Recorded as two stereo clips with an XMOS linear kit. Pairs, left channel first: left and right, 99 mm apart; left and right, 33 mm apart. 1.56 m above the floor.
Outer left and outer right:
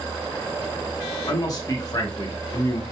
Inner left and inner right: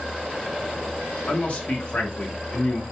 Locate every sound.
1.3 s a man speaking: 35° left (ahead or behind), 1.0 m